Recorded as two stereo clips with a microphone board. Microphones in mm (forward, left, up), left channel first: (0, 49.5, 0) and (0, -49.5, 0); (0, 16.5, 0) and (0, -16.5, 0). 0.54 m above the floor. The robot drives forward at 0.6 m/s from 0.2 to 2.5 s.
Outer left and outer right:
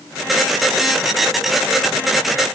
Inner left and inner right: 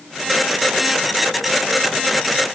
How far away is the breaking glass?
No breaking glass in this recording.